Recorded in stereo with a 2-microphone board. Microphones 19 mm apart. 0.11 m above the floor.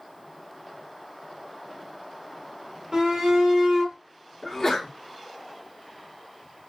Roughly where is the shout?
Right.